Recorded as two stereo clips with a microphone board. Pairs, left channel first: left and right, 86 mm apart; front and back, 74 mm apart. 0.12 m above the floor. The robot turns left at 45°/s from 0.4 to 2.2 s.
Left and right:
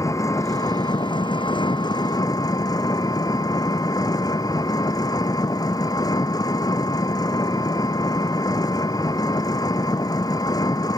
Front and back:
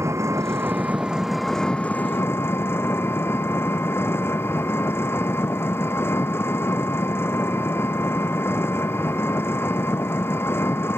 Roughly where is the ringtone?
I don't hear a ringtone.